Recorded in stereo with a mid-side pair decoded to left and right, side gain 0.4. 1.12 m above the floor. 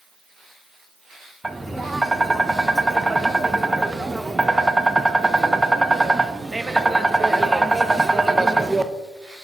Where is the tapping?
15° right, 0.5 m.